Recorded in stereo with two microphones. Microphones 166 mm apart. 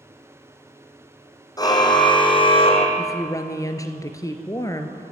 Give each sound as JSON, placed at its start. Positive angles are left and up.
{"t": 1.6, "sound": "a car horn", "side_deg": 25, "distance_m": 2.5}
{"t": 3.0, "sound": "a woman speaking", "side_deg": 20, "distance_m": 2.0}